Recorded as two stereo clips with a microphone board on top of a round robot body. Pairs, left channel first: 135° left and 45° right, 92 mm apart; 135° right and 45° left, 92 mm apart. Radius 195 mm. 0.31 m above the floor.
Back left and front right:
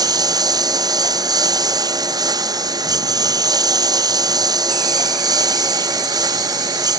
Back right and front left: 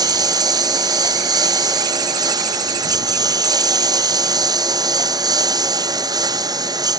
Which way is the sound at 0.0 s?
Straight ahead.